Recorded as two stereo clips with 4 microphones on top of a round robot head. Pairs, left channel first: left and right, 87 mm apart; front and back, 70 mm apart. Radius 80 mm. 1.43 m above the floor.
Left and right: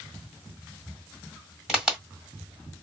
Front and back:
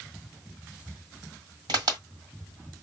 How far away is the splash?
No splash in this recording.